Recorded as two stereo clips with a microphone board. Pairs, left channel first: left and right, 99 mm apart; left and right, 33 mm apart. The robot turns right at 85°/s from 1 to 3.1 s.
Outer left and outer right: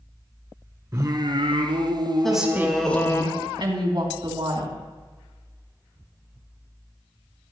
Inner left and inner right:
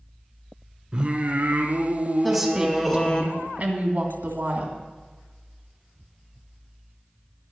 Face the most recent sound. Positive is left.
turn(degrees=-110)